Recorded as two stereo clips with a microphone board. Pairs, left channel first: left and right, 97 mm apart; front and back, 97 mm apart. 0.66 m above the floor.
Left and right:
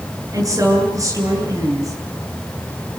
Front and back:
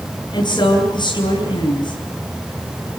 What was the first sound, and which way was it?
A woman speaking, 35° right.